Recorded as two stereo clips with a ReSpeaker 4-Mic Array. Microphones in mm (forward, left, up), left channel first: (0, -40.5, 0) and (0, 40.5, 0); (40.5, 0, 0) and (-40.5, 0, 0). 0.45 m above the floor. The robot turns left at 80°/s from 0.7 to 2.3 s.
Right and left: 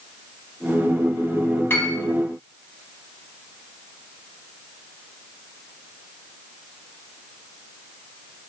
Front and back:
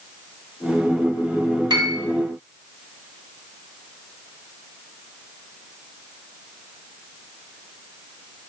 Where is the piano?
150° right, 0.6 m; by 2.0 s 175° right, 0.6 m.